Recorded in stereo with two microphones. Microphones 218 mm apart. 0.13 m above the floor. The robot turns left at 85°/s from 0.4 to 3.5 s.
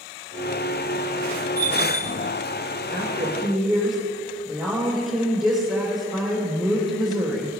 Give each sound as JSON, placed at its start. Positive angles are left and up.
{"t": 1.6, "sound": "a bell", "azimuth_deg": -80, "distance_m": 1.9}
{"t": 2.9, "sound": "a woman speaking", "azimuth_deg": -130, "distance_m": 4.0}